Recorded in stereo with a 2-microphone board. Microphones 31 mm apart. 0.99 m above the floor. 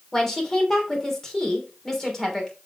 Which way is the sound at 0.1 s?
15° left (ahead or behind).